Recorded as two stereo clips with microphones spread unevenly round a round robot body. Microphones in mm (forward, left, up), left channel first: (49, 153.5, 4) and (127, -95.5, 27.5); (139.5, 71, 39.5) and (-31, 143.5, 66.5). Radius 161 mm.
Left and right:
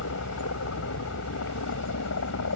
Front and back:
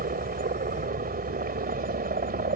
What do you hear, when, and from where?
0.0 s a helicopter: 135° left